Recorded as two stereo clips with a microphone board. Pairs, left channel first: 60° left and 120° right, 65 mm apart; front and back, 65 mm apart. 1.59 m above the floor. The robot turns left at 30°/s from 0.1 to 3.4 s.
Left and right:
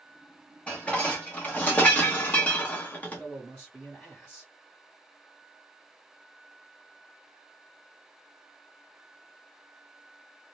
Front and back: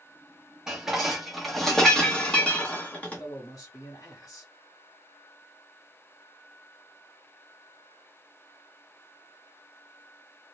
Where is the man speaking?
15° right, 1.0 m; by 4.5 s 25° right, 1.0 m.